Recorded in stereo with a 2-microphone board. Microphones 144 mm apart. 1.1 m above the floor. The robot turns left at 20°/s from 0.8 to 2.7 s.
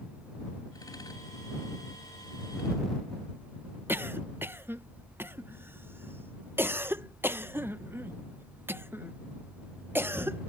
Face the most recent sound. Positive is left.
turn(degrees=-15)  # may be behind; listen again after turning